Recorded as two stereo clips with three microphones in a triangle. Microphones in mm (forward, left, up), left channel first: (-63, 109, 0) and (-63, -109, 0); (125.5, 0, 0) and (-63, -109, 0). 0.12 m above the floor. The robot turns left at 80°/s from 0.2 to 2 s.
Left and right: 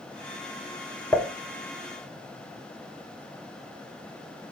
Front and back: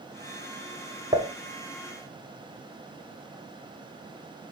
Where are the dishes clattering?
165° left, 0.9 m; by 1.3 s 150° left, 0.9 m.